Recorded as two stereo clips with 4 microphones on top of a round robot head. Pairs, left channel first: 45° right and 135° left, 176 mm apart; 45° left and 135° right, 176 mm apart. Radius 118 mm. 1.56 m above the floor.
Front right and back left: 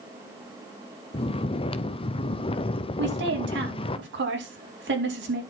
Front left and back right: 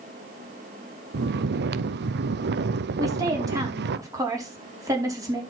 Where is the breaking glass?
No breaking glass in this recording.